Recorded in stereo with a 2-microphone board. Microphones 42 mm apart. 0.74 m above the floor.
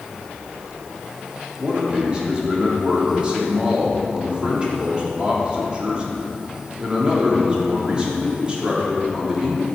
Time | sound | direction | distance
1.6 | a man speaking | 25° right (ahead or behind) | 1.6 m